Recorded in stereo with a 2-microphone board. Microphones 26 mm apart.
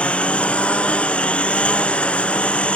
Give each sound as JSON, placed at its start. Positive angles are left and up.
{"t": 0.0, "sound": "a lawn mower", "side_deg": 50}